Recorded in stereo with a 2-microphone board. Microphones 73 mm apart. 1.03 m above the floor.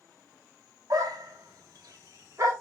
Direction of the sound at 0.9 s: 55° right (ahead or behind).